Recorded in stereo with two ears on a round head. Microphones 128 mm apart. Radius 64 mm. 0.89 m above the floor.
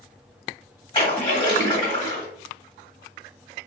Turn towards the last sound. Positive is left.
turn(degrees=30)  # may be behind; listen again after turning